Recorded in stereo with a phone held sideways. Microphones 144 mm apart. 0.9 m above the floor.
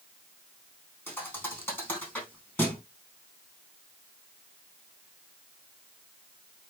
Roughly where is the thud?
Centre.